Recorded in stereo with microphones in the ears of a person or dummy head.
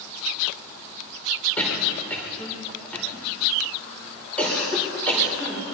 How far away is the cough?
About 5 m.